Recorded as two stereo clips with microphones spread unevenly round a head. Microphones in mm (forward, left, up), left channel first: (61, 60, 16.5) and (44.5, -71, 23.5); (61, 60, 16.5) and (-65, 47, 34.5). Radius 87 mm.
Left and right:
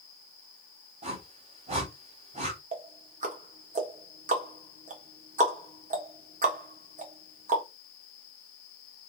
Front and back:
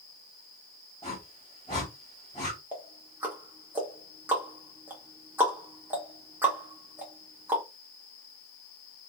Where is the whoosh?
65° right, 1.6 m.